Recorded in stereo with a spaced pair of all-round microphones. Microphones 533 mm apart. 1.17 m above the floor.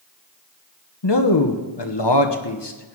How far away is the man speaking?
About 1.1 m.